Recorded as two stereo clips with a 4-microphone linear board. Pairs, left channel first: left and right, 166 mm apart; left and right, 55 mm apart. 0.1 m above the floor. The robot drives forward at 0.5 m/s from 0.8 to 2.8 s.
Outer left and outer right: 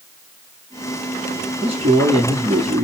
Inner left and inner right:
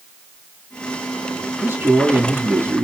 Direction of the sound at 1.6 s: 35° right (ahead or behind).